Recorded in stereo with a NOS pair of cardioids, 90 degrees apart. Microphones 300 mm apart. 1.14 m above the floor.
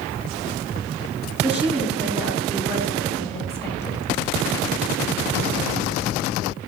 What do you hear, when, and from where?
1.4 s a woman speaking: 5° right, 3 m; by 4.0 s 10° left, 4.5 m